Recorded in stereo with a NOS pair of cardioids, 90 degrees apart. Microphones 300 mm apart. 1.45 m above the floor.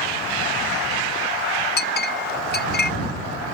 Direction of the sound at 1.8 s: 35° left.